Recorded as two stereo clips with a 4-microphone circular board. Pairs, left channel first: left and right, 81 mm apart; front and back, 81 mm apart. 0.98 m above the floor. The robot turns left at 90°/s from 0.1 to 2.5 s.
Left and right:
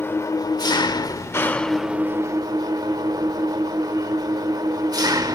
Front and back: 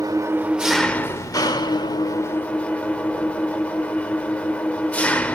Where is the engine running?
145° left, 1.0 m; by 5.4 s 70° right, 1.0 m.